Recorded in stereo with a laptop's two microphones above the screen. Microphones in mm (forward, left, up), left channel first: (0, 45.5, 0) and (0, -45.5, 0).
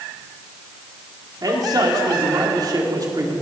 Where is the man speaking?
45° right (ahead or behind), 2.5 m.